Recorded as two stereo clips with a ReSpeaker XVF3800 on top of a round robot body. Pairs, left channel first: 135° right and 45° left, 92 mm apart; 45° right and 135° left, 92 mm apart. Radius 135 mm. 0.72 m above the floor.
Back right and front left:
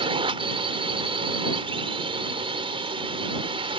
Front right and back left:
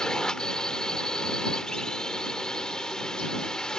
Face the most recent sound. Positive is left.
turn(degrees=35)